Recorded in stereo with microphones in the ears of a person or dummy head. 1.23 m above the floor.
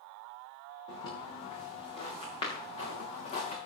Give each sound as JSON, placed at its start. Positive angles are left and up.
{"t": 0.9, "sound": "footsteps", "side_deg": 25, "distance_m": 7.0}